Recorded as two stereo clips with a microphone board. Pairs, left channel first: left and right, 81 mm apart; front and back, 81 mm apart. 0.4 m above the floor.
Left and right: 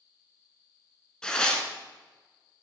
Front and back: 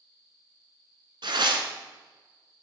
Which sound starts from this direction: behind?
Tearing paper, at 1.2 s.